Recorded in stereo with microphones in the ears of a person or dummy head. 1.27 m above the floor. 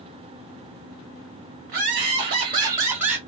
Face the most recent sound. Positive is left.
turn(degrees=-5)  # may be behind; listen again after turning